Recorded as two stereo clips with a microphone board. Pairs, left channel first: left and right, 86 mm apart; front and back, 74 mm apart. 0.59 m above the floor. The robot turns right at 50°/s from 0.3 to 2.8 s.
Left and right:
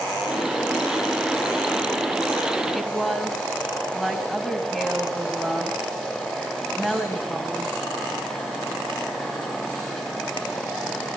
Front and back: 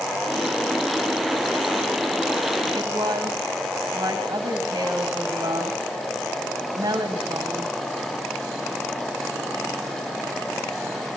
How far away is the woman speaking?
About 4 m.